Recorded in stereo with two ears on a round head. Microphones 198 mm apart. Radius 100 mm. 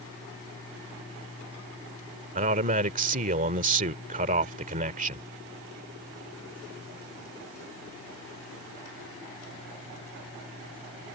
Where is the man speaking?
35° right (ahead or behind).